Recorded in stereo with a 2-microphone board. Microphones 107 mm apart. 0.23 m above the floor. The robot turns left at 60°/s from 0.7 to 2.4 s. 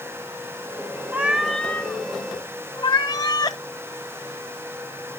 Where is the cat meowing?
160° right, 0.7 m; by 3.6 s 125° left, 0.7 m.